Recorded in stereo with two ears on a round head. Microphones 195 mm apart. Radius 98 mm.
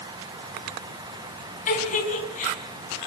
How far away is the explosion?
I don't hear an explosion.